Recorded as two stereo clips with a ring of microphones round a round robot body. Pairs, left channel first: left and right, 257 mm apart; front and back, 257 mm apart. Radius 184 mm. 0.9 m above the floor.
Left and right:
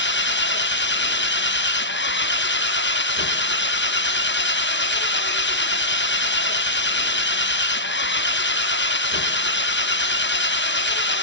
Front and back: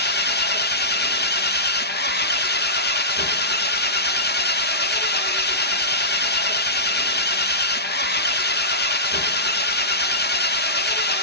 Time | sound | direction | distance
0.0 | an engine running | 50° left | 1.0 m